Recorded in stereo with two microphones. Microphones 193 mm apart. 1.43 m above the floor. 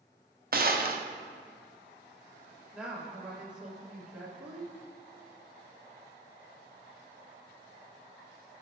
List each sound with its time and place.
0.5 s a gunshot: 50° right (ahead or behind), 0.6 m
2.7 s a woman speaking: 5° right (ahead or behind), 1.9 m